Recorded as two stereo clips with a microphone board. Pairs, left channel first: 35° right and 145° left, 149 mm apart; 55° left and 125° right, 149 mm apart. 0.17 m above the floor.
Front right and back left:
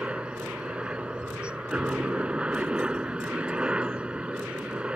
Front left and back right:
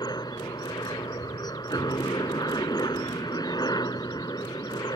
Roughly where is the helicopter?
Left.